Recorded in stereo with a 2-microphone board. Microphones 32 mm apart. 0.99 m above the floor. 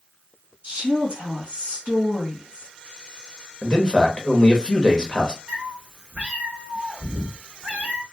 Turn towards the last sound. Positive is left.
turn(degrees=-50)  # may be behind; listen again after turning